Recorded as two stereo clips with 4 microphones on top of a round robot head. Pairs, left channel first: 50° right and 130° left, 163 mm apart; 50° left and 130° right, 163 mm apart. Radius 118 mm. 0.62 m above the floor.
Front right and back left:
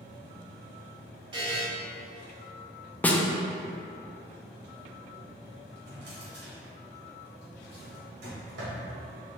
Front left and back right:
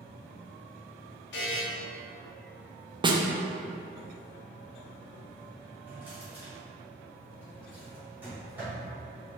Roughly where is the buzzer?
Left.